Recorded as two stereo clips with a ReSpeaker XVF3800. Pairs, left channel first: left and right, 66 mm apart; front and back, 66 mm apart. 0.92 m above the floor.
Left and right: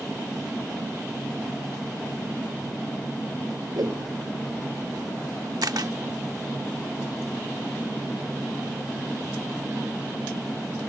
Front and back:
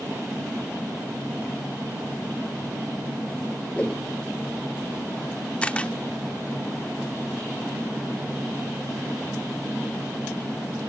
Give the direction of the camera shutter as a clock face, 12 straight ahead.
2 o'clock.